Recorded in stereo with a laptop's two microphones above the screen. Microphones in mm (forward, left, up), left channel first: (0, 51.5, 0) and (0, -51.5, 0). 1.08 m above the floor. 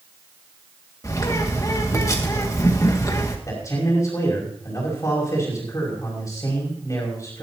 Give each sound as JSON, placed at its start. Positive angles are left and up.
{"t": 1.0, "sound": "a bird", "side_deg": 35, "distance_m": 2.0}
{"t": 3.5, "sound": "a man speaking", "side_deg": 35, "distance_m": 5.5}